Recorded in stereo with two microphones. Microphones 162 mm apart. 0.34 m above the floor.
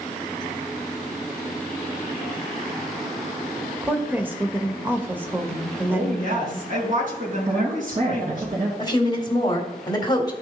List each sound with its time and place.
3.8 s a woman speaking: 10° right (ahead or behind), 0.9 m
5.9 s a woman speaking: 55° right (ahead or behind), 4 m
7.5 s a woman speaking: 60° right (ahead or behind), 3 m
8.8 s a woman speaking: 25° left (ahead or behind), 1.9 m